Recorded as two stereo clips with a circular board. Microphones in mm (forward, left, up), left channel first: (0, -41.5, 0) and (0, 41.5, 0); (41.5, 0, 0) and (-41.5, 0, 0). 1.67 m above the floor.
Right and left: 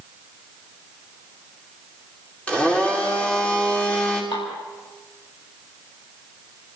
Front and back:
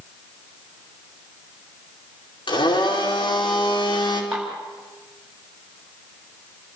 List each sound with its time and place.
2.5 s a blender: 15° right, 5 m
4.3 s dishes clattering: 100° right, 8 m